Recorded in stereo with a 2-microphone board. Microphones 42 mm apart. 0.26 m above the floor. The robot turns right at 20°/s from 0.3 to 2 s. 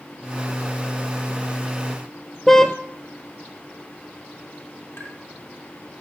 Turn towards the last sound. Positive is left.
turn(degrees=55)  # may be behind; listen again after turning